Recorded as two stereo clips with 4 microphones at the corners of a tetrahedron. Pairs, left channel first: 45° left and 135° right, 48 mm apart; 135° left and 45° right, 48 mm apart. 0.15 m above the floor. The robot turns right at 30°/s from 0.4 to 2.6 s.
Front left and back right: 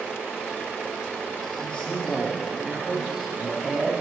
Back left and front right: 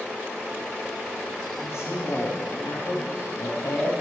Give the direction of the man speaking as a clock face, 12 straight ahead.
8 o'clock.